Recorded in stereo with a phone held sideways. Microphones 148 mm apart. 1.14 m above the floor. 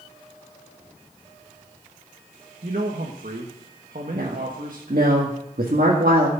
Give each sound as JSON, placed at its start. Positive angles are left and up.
{"t": 2.6, "sound": "a man speaking", "side_deg": -65, "distance_m": 1.3}
{"t": 4.1, "sound": "a woman speaking", "side_deg": -80, "distance_m": 2.0}